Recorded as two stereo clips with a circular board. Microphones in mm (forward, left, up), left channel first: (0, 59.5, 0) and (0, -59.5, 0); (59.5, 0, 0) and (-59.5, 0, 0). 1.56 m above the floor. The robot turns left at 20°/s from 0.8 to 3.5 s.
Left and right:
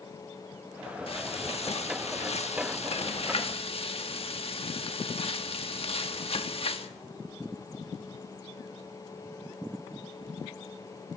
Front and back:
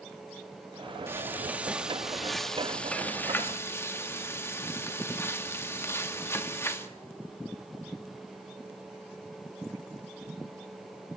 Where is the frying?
115° left, 1.5 m; by 6.9 s 65° left, 1.5 m.